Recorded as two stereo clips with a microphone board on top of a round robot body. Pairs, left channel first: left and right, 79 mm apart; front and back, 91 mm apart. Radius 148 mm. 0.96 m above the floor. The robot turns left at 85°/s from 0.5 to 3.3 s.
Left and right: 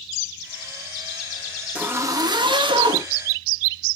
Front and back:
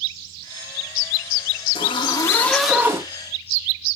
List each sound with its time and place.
1.8 s a zipper: 15° right, 2.5 m; by 3.1 s 125° right, 2.5 m